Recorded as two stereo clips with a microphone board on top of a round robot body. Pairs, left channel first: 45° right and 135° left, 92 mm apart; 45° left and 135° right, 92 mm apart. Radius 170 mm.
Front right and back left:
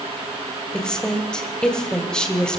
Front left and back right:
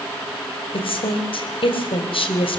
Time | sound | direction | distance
0.7 | a woman speaking | 35° left | 3.5 m